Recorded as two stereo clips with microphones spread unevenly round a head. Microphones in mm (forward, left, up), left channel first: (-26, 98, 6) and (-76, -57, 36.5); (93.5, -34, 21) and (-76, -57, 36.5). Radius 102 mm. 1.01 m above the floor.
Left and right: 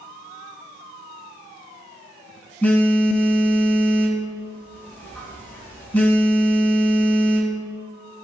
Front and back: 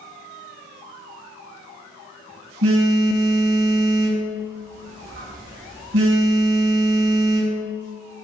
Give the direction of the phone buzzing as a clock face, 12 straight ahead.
7 o'clock.